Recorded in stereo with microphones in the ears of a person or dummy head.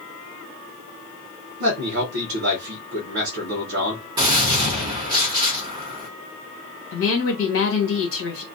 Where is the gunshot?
20° right (ahead or behind), 0.6 m.